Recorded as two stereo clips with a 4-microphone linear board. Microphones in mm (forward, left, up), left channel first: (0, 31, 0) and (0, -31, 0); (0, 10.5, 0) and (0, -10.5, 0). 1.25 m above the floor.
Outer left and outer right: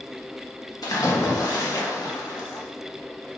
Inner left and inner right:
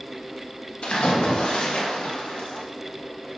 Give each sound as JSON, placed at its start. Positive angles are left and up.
{"t": 0.8, "sound": "a splash", "side_deg": 80, "distance_m": 1.5}